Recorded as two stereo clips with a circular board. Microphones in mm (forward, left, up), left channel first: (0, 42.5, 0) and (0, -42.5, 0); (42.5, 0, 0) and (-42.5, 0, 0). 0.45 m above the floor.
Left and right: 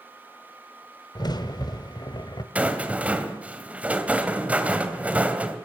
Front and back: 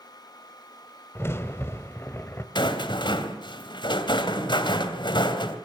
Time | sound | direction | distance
1.1 | a crack | 60° left | 1.8 m
2.5 | a rattle | 15° right | 3 m